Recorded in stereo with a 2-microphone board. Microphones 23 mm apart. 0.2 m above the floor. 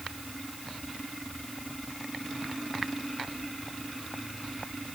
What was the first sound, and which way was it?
Only background noise.